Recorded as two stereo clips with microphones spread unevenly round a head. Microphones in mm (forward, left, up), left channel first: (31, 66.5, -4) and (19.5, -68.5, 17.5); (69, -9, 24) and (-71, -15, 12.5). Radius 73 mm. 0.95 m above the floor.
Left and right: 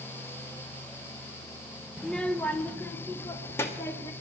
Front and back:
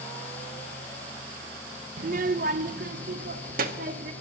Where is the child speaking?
165° left, 0.5 m; by 4.1 s 155° left, 1.6 m.